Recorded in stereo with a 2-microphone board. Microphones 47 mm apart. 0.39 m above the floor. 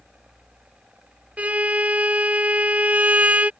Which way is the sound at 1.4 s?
35° right (ahead or behind).